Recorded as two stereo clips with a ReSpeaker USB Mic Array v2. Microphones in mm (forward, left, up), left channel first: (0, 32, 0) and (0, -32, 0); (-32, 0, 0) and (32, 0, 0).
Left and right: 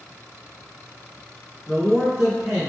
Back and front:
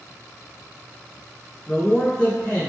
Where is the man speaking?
165° right, 1.8 m.